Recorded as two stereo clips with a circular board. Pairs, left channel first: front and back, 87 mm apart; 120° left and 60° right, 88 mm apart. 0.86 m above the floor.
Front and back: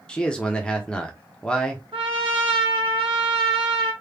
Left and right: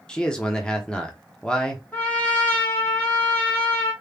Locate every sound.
0.1 s a man speaking: 55° left, 0.9 m
1.9 s a trumpet: 170° right, 1.1 m